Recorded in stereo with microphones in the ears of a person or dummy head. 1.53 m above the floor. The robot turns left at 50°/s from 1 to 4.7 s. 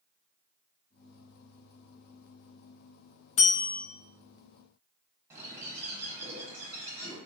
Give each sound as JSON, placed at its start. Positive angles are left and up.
{"t": 3.4, "sound": "a bell", "side_deg": 35, "distance_m": 0.5}
{"t": 5.3, "sound": "a bird", "side_deg": -15, "distance_m": 0.8}